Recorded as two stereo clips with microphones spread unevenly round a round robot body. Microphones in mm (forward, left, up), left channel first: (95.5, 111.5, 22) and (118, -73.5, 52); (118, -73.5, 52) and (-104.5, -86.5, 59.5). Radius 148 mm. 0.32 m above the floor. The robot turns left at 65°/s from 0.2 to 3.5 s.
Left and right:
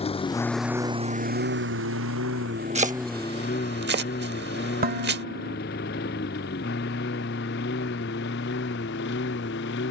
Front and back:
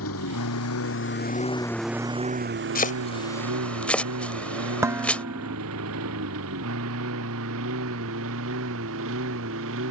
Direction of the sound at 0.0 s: 40° left.